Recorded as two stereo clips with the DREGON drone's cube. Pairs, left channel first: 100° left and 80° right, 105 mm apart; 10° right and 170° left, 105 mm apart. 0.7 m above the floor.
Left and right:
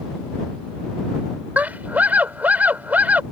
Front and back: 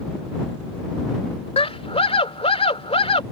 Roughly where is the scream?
Ahead.